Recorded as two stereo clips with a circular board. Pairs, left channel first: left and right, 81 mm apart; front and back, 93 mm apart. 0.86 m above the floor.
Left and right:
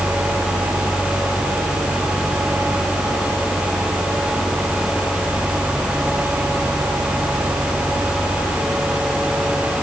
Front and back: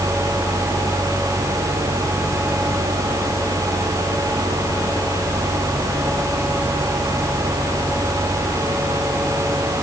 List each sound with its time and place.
Only background noise.